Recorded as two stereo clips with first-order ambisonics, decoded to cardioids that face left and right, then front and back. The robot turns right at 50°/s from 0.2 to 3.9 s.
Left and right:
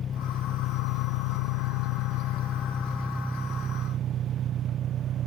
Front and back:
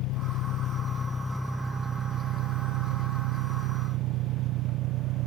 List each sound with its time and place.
0.0 s an engine running: 30° left; by 5.3 s 145° right